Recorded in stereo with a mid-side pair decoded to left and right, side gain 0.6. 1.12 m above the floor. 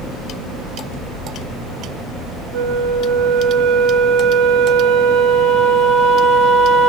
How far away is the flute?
About 1.1 m.